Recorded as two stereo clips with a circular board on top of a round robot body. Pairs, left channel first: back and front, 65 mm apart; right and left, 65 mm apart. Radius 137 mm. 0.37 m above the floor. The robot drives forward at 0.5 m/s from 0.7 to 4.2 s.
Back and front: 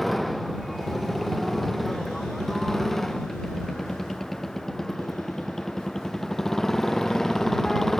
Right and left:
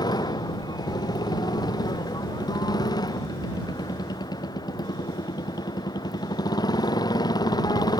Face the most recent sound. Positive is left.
turn(degrees=-95)